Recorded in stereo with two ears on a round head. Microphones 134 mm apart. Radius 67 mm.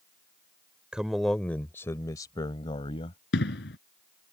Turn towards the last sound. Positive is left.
turn(degrees=85)